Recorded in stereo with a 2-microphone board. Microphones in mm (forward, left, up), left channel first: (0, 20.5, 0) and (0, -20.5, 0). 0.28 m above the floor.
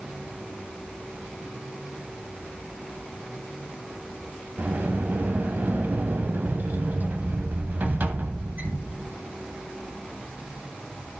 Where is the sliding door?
50° right (ahead or behind), 1.0 m.